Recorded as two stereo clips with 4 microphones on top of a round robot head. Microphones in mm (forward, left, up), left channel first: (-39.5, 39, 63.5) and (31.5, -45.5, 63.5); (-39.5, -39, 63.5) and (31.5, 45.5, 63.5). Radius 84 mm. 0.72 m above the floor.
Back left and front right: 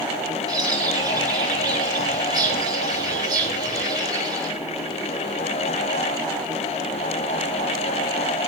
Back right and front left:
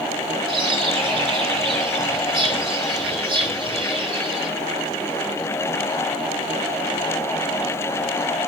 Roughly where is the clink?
I don't hear a clink.